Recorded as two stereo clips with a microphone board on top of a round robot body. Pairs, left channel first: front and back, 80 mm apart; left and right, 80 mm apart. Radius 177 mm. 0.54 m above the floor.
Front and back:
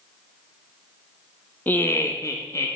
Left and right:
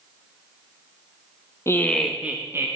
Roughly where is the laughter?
Ahead left.